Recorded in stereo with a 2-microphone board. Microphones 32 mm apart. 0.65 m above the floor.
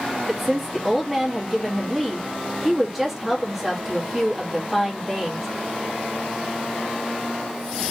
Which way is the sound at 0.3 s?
5° right (ahead or behind).